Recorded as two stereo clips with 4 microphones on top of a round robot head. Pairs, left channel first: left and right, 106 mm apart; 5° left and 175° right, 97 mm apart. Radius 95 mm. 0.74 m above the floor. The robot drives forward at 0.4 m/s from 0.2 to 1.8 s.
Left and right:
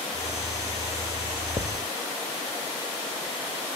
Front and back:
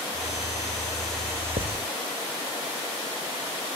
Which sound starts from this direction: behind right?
Writing, at 1.6 s.